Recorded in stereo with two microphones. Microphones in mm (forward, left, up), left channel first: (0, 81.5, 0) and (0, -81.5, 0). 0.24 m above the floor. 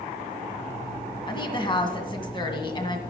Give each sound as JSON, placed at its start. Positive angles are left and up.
{"t": 1.3, "sound": "a woman speaking", "side_deg": 30, "distance_m": 2.0}